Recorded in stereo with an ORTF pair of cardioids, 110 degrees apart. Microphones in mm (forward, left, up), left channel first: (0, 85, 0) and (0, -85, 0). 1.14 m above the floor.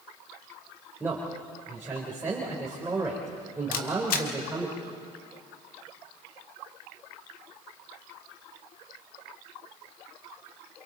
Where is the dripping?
I don't hear dripping.